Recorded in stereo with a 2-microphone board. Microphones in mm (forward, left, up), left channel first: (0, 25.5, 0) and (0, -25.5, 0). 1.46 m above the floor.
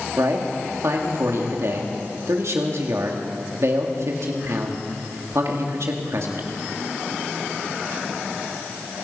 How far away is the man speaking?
About 2.5 m.